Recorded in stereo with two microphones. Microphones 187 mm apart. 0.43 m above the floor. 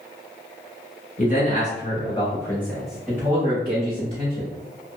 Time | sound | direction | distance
1.2 | a man speaking | 45° left (ahead or behind) | 1.2 m